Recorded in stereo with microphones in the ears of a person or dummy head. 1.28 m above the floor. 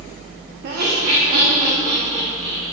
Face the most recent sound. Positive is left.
turn(degrees=-45)  # may be behind; listen again after turning